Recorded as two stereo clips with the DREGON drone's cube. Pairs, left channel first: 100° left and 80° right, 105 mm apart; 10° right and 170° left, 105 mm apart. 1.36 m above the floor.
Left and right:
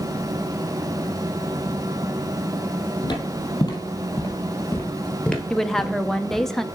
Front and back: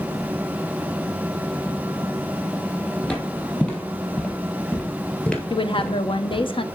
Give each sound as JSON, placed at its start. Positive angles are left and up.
{"t": 3.0, "sound": "footsteps", "azimuth_deg": 65, "distance_m": 2.0}
{"t": 5.5, "sound": "a woman speaking", "azimuth_deg": 15, "distance_m": 0.5}